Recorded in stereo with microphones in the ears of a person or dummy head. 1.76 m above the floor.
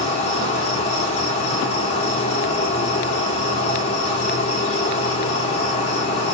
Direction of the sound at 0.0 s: 40° left (ahead or behind).